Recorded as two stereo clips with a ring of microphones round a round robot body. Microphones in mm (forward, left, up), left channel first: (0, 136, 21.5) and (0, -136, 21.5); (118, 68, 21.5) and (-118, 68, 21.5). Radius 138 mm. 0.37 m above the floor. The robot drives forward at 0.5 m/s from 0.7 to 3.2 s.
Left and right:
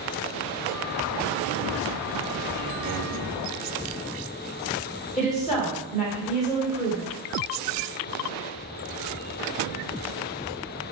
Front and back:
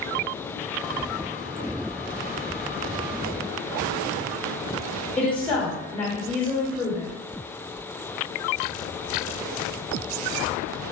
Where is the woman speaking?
75° left, 1.0 m.